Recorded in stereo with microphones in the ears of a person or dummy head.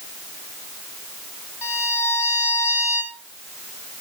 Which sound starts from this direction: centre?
A violin, at 1.6 s.